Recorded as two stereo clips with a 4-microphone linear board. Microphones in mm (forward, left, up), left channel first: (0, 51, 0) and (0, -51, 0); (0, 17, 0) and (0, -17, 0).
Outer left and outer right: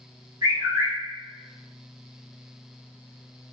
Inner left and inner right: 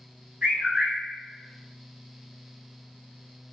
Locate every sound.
0.4 s a bird: 35° right (ahead or behind), 1.1 m